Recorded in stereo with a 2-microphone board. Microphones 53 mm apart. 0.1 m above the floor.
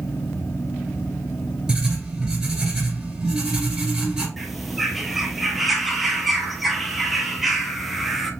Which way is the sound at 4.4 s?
Centre (ahead or behind).